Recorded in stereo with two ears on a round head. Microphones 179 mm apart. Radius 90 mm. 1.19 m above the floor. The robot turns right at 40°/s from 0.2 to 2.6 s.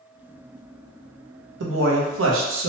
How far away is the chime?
No chime in this recording.